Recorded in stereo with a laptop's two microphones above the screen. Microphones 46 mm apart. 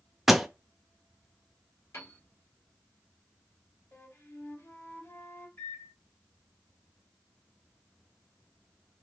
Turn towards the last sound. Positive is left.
turn(degrees=50)  # may be behind; listen again after turning